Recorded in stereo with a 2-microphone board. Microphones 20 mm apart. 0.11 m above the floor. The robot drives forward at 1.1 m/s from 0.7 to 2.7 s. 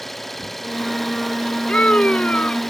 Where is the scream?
70° left (ahead or behind); by 2.6 s 75° left (ahead or behind).